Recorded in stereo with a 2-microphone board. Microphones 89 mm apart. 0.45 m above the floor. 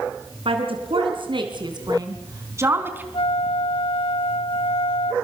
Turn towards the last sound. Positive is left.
turn(degrees=75)  # may be behind; listen again after turning